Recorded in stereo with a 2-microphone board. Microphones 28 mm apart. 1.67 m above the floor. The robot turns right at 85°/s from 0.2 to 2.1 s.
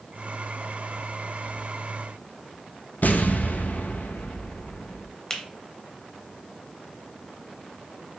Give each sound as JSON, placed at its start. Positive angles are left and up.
{"t": 3.0, "sound": "an explosion", "side_deg": 75, "distance_m": 0.5}
{"t": 5.3, "sound": "a finger snap", "side_deg": 15, "distance_m": 0.9}